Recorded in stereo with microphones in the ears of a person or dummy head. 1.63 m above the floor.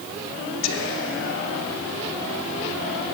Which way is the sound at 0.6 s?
65° left (ahead or behind).